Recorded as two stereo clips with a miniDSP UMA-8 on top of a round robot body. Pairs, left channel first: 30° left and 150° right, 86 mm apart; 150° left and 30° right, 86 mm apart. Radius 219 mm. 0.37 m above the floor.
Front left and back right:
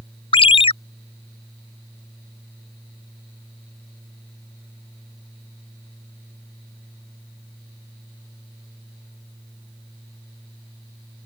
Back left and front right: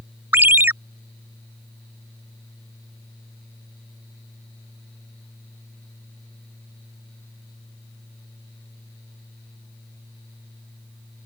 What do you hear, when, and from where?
0.3 s a ringtone: 40° left